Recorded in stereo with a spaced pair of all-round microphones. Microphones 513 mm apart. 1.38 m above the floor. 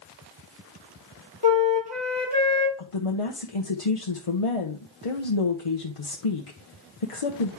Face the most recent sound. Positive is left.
turn(degrees=85)